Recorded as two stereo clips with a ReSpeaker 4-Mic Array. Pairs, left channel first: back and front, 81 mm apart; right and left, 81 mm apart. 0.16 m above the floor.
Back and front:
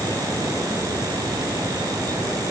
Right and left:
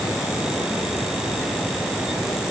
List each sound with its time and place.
Only background noise.